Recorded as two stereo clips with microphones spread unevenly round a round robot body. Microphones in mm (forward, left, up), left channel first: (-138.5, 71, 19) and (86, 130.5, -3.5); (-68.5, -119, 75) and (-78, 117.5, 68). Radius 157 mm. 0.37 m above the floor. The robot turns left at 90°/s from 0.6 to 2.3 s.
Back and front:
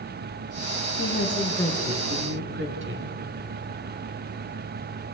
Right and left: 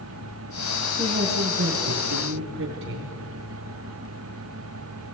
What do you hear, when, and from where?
1.0 s a woman speaking: 165° left, 4 m; by 3.1 s 50° left, 4 m